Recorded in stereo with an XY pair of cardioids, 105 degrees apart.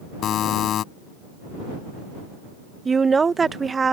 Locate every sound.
0.2 s a buzzer: 65° left
2.9 s a woman speaking: 30° right